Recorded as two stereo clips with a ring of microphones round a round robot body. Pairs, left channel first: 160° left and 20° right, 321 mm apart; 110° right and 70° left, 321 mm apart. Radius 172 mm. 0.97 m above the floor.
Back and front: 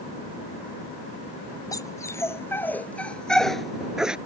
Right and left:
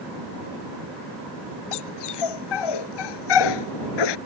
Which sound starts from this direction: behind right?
A dog barking, at 1.7 s.